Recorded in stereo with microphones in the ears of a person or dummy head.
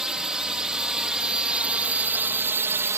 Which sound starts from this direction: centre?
A drone, at 0.0 s.